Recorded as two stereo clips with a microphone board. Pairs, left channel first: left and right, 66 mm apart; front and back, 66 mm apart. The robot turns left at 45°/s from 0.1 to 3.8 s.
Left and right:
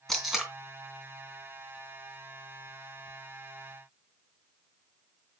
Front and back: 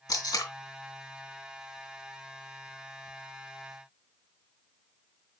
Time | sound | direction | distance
0.1 | tape being pulled | 5° left | 3 m